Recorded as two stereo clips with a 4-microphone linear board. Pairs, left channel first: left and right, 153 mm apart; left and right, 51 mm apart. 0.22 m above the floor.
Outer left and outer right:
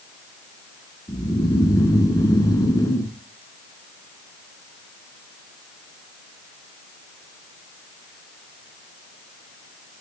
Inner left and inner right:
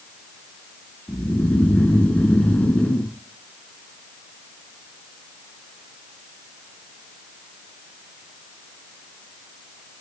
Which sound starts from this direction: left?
Snoring, at 1.1 s.